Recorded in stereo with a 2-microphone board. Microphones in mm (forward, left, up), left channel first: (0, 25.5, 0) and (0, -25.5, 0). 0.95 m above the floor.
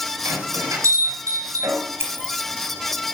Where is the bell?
80° right, 5 m.